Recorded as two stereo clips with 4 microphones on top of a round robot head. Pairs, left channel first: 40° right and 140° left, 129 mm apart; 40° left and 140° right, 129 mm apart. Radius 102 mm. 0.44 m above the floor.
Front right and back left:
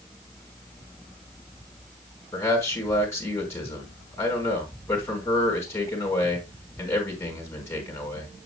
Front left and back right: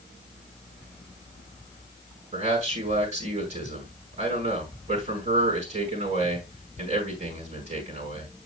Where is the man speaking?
110° right, 4.5 m.